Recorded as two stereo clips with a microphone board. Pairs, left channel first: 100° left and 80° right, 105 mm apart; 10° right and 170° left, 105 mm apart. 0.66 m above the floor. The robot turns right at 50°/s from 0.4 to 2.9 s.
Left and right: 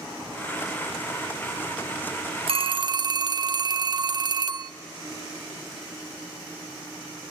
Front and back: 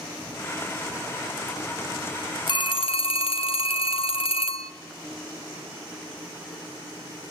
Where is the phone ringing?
55° right, 0.5 m; by 4.7 s 35° right, 0.5 m.